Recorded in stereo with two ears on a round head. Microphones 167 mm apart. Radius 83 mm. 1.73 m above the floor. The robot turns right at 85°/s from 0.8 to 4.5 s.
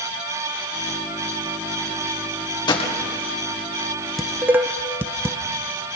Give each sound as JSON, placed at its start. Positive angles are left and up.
{"t": 2.7, "sound": "a gunshot", "side_deg": 25, "distance_m": 2.0}
{"t": 4.2, "sound": "dishes clattering", "side_deg": 0, "distance_m": 0.8}